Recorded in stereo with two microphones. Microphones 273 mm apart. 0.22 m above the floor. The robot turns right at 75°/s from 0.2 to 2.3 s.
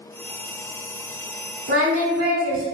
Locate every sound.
1.7 s singing: 125° right, 0.7 m; by 2.7 s 80° right, 0.7 m